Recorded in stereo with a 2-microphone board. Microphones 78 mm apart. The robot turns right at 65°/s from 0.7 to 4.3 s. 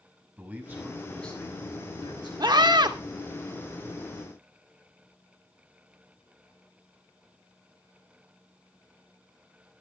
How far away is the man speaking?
About 7 m.